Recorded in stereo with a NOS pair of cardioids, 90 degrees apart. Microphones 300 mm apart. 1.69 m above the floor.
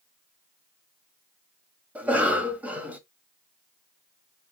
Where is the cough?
5° right, 1.3 m.